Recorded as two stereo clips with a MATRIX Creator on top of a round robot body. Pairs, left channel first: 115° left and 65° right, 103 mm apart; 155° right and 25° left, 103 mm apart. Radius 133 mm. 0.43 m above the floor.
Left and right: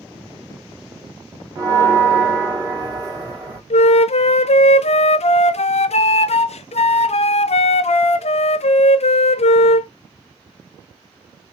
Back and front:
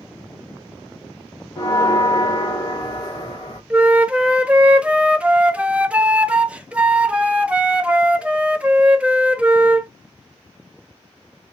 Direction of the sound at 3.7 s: 100° left.